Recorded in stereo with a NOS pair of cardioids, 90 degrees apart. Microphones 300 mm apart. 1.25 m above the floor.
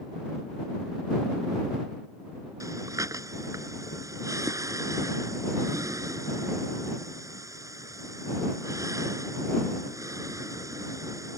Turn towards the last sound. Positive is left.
turn(degrees=-10)